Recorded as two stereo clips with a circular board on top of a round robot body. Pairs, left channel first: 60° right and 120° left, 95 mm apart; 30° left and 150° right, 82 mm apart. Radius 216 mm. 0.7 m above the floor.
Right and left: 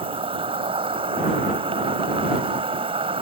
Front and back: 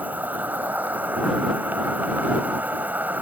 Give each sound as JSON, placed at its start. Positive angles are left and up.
{"t": 0.0, "sound": "an insect", "azimuth_deg": 140}